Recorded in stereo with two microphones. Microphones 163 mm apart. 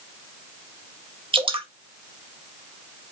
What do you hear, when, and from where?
1.3 s dripping: 30° right (ahead or behind), 0.6 m